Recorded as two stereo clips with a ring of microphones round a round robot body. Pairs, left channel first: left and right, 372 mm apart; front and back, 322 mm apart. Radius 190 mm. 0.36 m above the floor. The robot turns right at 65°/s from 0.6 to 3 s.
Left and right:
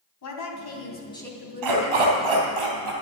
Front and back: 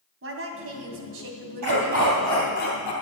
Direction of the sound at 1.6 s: 130° right.